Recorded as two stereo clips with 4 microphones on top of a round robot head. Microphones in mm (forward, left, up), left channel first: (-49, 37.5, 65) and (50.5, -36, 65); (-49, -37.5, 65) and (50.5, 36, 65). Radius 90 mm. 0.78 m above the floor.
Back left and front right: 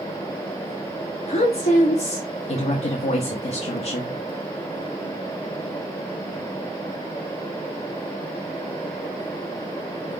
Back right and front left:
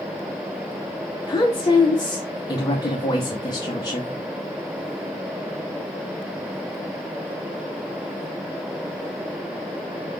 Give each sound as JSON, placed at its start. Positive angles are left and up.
{"t": 1.3, "sound": "a woman speaking", "azimuth_deg": 160, "distance_m": 0.9}